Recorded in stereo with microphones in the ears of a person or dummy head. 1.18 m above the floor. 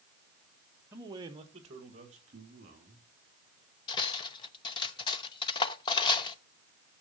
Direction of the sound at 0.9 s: 15° right (ahead or behind).